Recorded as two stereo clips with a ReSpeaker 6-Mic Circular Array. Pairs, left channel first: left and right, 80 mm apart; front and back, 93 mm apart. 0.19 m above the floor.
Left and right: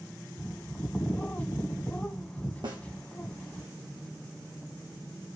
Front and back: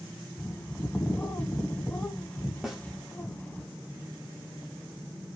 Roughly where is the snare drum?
Right.